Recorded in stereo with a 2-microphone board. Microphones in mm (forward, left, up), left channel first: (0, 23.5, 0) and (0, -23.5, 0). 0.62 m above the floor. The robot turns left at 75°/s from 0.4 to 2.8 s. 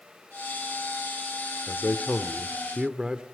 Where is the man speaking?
65° left, 1.3 m; by 3.2 s 20° right, 1.3 m.